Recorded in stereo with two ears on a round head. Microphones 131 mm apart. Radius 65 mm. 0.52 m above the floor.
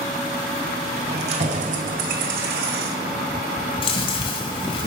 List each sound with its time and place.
1.1 s keys jangling: 40° right (ahead or behind), 1.5 m; by 3.2 s 80° right, 2 m
3.8 s chewing: 40° left (ahead or behind), 1.9 m